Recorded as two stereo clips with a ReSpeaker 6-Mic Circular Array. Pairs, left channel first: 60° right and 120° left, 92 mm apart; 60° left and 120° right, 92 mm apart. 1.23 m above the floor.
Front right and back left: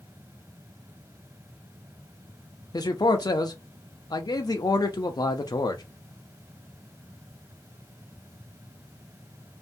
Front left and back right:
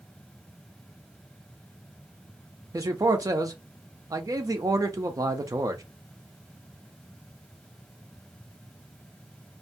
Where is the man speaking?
85° right, 0.5 m.